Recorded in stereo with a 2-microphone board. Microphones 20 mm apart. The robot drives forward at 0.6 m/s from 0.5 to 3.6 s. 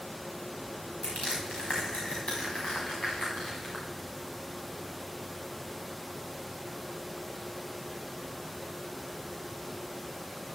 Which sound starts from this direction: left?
Crushing, at 1.0 s.